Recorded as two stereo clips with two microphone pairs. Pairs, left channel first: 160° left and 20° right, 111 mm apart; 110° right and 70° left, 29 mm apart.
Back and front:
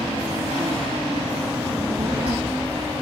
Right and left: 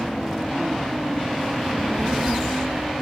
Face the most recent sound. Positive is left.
turn(degrees=15)